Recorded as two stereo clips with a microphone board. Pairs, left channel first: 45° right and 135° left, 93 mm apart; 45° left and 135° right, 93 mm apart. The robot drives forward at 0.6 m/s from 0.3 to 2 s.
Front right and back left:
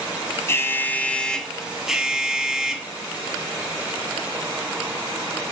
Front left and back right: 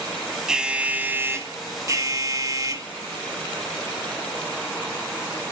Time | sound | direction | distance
0.5 | an alarm | 60° right | 1.1 m